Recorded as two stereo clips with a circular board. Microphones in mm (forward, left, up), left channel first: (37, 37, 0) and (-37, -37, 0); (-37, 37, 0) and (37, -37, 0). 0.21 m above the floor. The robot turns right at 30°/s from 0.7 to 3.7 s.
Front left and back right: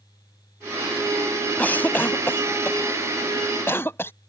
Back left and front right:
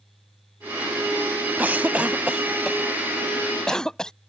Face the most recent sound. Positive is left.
turn(degrees=60)